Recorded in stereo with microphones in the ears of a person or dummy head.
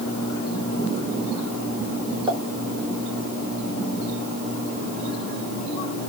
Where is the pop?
25° right (ahead or behind), 0.8 m.